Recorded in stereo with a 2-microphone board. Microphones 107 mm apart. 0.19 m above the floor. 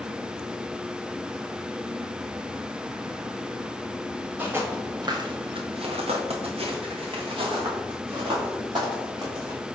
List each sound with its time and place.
4.4 s footsteps: 20° right (ahead or behind), 1.6 m; by 9.6 s 45° right (ahead or behind), 4.5 m